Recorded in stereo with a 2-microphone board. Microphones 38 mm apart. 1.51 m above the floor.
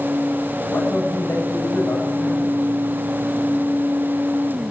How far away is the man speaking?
About 9 m.